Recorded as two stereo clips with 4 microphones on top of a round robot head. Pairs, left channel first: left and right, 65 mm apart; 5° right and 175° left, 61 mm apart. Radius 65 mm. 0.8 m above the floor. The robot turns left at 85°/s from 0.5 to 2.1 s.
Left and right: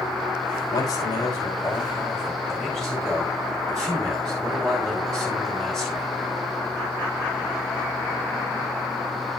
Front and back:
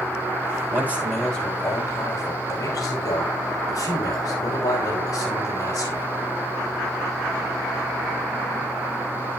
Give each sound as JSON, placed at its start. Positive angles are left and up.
{"t": 0.7, "sound": "a man speaking", "azimuth_deg": 125, "distance_m": 5.5}